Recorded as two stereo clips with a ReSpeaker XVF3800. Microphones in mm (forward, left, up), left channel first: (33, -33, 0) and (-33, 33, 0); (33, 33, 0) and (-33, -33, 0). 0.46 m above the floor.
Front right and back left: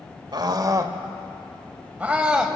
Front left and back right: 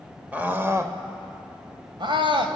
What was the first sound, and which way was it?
A scream, 155° left.